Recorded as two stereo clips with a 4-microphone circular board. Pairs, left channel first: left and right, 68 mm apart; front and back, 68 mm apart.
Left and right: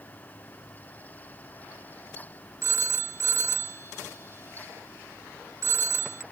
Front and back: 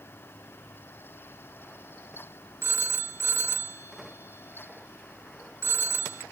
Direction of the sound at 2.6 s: 130° right.